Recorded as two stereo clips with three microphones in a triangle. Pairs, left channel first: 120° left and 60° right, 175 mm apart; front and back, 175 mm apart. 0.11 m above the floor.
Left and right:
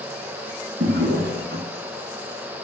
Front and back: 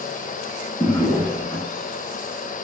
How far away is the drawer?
About 4 m.